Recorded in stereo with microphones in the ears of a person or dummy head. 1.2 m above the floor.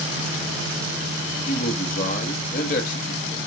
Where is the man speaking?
35° left (ahead or behind), 1.8 m.